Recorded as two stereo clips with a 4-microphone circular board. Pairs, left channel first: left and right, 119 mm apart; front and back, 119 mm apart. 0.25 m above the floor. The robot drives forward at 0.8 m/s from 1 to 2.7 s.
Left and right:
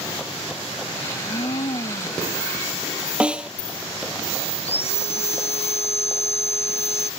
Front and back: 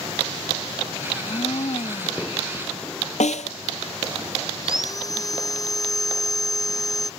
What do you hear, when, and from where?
1.1 s a blender: 45° left; by 2.3 s 50° left
3.2 s a snare drum: 10° right
4.6 s sawing: 60° left